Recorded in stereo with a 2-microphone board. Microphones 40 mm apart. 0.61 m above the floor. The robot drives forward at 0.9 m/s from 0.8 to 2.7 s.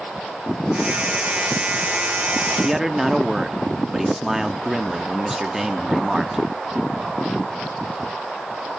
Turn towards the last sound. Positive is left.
turn(degrees=-10)  # may be behind; listen again after turning